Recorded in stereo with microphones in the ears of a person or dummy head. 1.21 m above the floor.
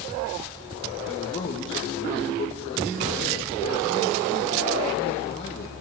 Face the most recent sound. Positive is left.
turn(degrees=30)  # may be behind; listen again after turning